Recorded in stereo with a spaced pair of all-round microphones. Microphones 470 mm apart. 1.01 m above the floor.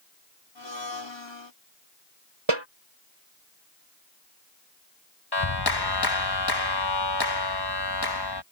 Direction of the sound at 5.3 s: 55° left (ahead or behind).